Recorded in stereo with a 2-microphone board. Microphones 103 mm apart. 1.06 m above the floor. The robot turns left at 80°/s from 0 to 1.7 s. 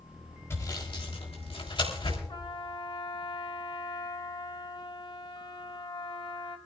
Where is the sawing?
25° left (ahead or behind), 3.5 m; by 2.2 s 55° left (ahead or behind), 3.5 m.